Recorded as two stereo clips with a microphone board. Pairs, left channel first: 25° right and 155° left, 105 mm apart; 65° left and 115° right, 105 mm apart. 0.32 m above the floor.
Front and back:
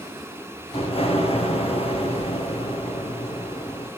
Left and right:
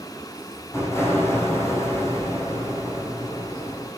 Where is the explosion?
Straight ahead, 5.5 m.